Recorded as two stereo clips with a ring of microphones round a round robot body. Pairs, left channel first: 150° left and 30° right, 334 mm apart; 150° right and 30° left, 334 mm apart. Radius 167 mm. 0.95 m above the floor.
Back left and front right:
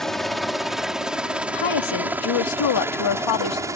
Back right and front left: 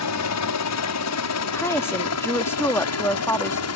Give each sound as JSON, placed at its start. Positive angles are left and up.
{"t": 0.0, "sound": "a helicopter", "azimuth_deg": -120}
{"t": 1.5, "sound": "a woman speaking", "azimuth_deg": 125}